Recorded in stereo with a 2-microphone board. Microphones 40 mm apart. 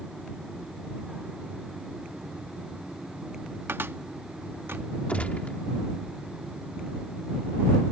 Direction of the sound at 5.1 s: 35° left (ahead or behind).